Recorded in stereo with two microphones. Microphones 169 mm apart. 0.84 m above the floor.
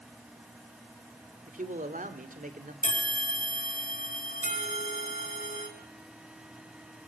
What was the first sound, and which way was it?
A man speaking, 50° right (ahead or behind).